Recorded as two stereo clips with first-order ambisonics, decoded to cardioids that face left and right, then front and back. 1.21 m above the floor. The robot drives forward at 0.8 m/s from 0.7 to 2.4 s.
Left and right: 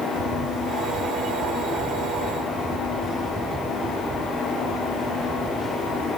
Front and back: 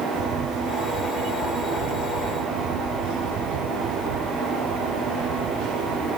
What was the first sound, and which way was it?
A camera shutter, 145° right.